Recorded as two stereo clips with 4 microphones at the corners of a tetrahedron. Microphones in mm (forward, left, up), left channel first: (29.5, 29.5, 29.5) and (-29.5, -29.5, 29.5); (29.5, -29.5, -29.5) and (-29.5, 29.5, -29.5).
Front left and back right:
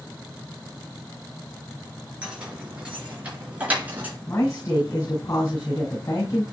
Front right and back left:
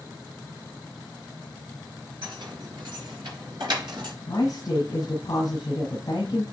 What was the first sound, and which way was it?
Keys jangling, 150° left.